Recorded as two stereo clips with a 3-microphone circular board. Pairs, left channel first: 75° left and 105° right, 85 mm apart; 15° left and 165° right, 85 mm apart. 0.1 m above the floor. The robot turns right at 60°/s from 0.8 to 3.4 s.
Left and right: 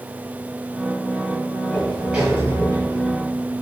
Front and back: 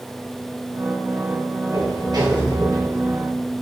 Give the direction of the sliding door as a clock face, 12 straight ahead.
7 o'clock.